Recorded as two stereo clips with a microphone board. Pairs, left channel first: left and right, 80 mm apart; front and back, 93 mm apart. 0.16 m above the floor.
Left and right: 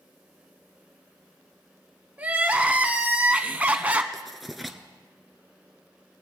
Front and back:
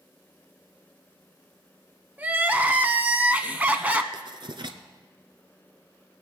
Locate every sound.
2.2 s crying: 135° right, 0.7 m
4.1 s writing: straight behind, 0.9 m